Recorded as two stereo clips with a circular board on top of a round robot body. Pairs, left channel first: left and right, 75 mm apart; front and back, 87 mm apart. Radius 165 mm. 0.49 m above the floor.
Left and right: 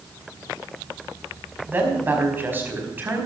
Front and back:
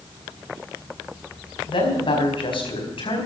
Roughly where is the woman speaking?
Ahead right.